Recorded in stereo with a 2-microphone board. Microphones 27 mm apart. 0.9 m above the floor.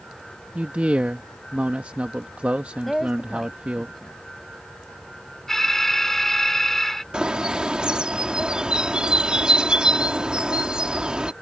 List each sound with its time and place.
0.6 s a man speaking: 50° right (ahead or behind)
2.9 s a woman speaking: centre (ahead or behind)
5.5 s an alarm: 10° left (ahead or behind)
7.1 s a bird: 35° right (ahead or behind)